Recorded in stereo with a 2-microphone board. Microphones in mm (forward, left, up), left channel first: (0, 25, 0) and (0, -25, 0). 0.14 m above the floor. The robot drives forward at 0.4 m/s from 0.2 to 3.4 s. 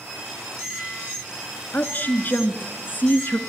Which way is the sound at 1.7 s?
35° left (ahead or behind).